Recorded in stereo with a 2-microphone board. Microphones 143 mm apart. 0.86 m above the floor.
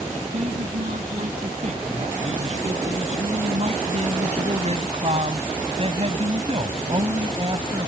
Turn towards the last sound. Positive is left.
turn(degrees=-35)  # may be behind; listen again after turning